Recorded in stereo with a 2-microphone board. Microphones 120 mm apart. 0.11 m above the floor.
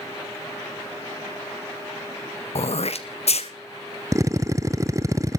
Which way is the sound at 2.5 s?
60° left (ahead or behind).